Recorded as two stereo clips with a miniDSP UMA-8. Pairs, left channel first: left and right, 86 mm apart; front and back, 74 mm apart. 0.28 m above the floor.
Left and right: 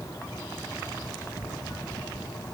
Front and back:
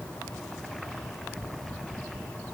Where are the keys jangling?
I don't hear keys jangling.